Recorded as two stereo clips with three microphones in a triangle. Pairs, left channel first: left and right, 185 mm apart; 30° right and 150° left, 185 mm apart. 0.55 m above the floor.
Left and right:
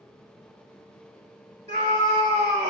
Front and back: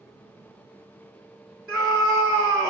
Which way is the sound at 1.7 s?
130° right.